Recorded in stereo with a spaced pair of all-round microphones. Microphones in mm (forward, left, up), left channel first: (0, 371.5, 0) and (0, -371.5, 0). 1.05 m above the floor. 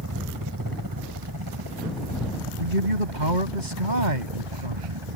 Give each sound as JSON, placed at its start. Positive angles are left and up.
{"t": 0.0, "sound": "a helicopter", "side_deg": -25}
{"t": 2.6, "sound": "a man speaking", "side_deg": -80}